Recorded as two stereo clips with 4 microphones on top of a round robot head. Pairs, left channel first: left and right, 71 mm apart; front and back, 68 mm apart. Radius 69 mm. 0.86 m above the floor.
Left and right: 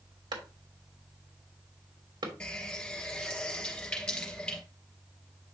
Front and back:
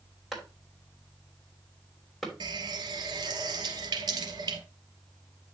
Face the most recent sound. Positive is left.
turn(degrees=170)